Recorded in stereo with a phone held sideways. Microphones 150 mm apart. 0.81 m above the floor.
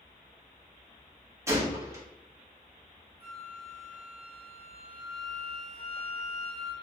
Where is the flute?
40° right (ahead or behind), 2.0 m.